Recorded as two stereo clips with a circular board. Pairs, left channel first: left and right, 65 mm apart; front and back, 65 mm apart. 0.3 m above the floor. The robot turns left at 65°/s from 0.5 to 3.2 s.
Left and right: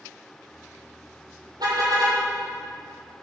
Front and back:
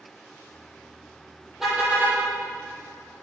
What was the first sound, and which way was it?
A car horn, 95° right.